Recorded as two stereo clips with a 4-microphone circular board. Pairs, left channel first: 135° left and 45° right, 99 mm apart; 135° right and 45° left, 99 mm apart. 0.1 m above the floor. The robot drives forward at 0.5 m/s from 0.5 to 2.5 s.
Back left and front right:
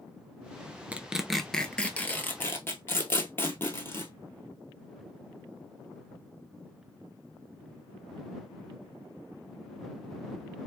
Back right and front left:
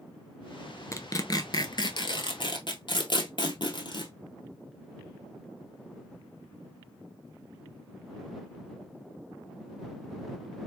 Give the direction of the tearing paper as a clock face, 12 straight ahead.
4 o'clock.